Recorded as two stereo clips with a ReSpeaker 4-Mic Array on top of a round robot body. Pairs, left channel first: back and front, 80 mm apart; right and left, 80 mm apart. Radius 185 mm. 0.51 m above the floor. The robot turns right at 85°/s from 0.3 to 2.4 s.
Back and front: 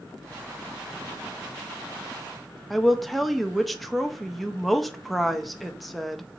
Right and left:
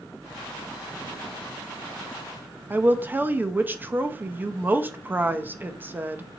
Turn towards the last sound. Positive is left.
turn(degrees=90)